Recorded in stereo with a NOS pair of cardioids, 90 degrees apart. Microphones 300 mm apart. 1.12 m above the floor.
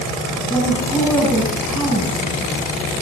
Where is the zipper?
I don't hear a zipper.